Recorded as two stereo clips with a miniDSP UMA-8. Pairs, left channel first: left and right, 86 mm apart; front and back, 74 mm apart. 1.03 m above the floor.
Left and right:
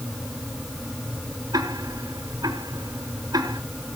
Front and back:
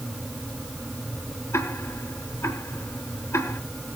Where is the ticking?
50° right, 3.5 m.